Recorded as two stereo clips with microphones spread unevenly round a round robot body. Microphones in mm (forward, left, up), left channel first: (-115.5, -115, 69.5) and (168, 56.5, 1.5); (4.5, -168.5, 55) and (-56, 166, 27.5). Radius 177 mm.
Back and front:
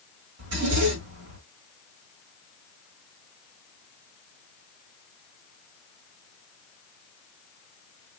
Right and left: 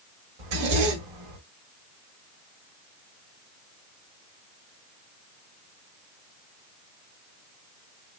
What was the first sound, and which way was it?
A zipper, 85° left.